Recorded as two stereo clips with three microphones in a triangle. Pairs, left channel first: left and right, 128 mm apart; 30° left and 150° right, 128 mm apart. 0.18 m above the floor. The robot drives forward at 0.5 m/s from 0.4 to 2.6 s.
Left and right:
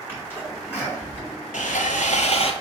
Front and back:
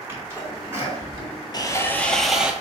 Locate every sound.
0.1 s a sneeze: 150° left, 2 m; by 1.3 s 160° left, 2.5 m
1.5 s sawing: 85° left, 0.5 m; by 2.5 s 130° left, 0.7 m